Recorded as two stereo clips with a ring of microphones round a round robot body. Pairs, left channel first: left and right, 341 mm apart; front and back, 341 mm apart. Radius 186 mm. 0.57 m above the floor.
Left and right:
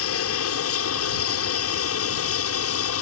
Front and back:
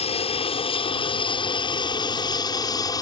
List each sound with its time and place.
0.0 s an aircraft: 65° left; by 3.0 s 75° left